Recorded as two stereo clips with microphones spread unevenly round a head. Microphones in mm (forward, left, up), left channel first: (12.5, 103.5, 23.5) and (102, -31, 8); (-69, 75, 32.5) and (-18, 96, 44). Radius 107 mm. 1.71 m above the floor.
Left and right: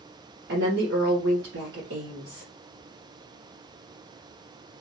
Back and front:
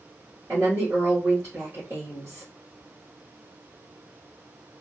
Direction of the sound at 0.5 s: 50° right.